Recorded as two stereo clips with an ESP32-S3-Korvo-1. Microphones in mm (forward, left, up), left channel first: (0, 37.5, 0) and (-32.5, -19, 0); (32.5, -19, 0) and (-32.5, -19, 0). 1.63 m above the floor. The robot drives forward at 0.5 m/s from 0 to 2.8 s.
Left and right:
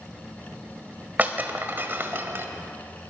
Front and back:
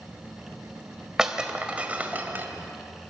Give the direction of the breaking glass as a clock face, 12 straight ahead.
4 o'clock.